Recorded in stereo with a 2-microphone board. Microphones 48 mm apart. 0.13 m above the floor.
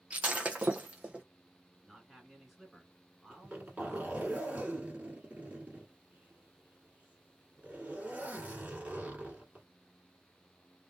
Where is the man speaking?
5° right (ahead or behind), 1.6 m.